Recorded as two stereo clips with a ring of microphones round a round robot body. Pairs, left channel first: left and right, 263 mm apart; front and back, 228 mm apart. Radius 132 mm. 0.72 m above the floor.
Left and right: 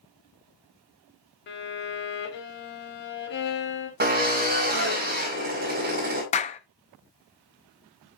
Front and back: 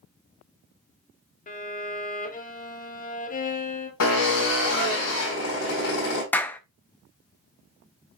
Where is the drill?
35° right, 4.5 m.